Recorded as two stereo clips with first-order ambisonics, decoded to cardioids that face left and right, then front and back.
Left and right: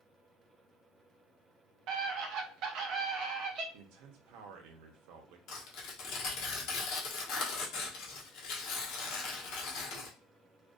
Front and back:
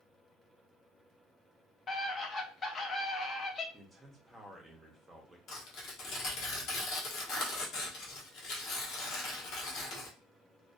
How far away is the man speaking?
About 0.6 m.